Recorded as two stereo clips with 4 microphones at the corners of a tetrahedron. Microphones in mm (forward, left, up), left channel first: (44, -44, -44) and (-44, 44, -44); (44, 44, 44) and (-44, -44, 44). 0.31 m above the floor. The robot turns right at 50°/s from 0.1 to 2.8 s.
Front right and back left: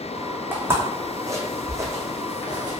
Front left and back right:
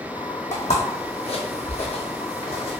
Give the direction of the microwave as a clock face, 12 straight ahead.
No microwave in this recording.